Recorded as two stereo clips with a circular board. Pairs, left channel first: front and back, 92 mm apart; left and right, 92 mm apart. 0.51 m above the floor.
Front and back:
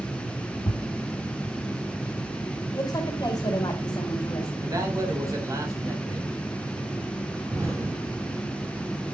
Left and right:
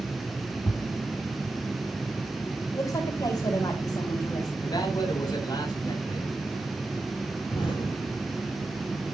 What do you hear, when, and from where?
0.7 s a thud: 35° left, 0.8 m
2.7 s a woman speaking: 50° left, 2.5 m
4.6 s a man speaking: 130° left, 3.5 m
7.5 s an explosion: 125° left, 6.5 m